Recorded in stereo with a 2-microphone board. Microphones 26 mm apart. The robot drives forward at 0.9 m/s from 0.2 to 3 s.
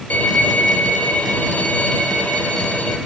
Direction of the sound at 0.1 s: 85° left.